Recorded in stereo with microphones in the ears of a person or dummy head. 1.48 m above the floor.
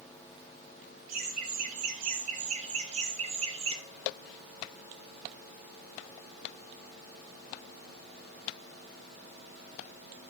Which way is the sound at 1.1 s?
50° right (ahead or behind).